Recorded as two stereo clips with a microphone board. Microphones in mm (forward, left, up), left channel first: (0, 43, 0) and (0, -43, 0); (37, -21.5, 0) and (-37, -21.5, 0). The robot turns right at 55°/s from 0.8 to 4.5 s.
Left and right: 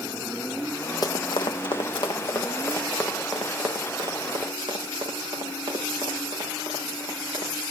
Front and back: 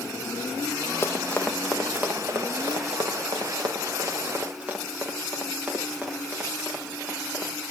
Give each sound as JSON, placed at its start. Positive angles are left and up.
{"t": 1.0, "sound": "running footsteps", "azimuth_deg": 50, "distance_m": 1.1}